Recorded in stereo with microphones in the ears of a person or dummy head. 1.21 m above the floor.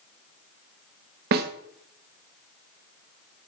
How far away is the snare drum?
About 0.9 m.